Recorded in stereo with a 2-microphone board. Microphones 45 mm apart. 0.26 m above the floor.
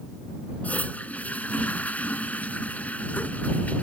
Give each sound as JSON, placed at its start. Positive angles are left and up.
{"t": 0.6, "sound": "a toilet flushing", "side_deg": 35}